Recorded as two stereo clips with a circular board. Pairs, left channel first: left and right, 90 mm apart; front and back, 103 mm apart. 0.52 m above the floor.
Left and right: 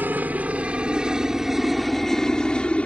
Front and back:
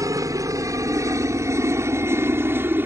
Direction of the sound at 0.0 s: 150° right.